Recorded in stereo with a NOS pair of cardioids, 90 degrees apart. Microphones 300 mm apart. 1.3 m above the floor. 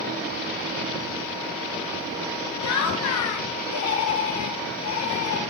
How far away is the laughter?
About 0.9 m.